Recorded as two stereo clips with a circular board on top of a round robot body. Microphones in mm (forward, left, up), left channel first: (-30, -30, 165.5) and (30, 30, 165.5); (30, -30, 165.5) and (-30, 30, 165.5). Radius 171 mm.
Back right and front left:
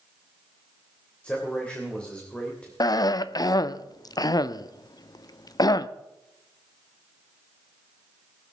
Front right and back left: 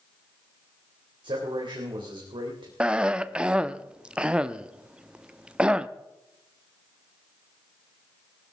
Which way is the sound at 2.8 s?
150° right.